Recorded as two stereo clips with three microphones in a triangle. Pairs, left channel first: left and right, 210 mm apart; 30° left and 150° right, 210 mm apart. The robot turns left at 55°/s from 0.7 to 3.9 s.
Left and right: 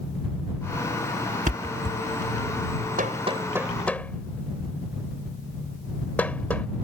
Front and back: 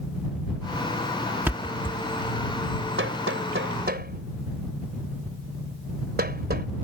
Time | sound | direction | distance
1.5 | a thud | 75° right | ?
3.0 | hammering | 135° right | ?